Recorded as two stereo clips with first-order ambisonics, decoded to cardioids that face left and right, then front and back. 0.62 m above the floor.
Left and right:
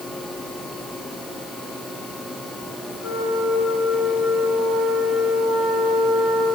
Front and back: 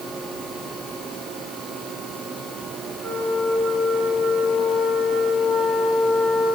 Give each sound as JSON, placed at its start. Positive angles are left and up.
{"t": 3.0, "sound": "a flute", "azimuth_deg": 120, "distance_m": 4.0}